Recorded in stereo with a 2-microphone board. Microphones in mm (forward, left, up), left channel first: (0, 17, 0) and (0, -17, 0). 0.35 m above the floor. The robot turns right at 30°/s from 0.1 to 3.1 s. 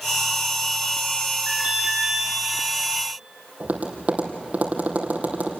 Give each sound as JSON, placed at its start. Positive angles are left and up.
{"t": 1.5, "sound": "an alarm", "side_deg": -45, "distance_m": 6.5}
{"t": 3.6, "sound": "tapping", "side_deg": -45, "distance_m": 3.5}